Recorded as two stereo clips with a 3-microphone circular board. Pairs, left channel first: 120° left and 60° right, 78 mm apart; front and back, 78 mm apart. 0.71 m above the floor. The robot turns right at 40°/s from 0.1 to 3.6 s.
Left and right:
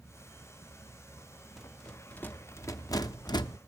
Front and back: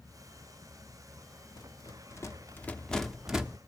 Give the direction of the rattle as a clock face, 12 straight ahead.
11 o'clock.